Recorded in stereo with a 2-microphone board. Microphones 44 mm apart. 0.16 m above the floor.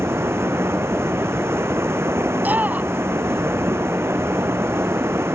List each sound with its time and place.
0.0 s running water: 75° right (ahead or behind)
2.4 s a shout: 40° right (ahead or behind)